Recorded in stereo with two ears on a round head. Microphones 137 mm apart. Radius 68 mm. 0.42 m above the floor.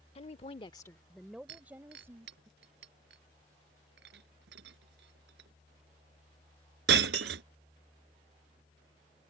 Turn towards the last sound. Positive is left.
turn(degrees=-85)